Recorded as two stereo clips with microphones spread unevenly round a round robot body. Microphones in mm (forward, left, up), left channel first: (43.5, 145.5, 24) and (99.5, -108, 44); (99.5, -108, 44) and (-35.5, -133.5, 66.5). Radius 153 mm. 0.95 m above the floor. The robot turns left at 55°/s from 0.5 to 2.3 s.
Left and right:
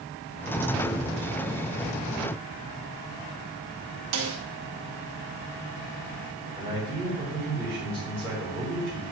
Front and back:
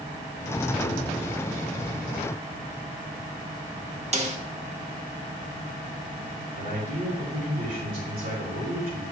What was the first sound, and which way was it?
A snare drum, 125° right.